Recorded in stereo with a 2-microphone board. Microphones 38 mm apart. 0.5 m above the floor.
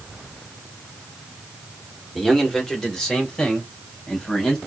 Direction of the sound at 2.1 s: 10° left (ahead or behind).